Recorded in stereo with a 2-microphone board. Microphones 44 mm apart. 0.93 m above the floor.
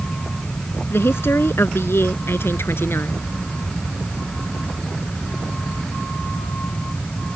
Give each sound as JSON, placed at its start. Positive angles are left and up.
{"t": 0.9, "sound": "a woman speaking", "side_deg": 65}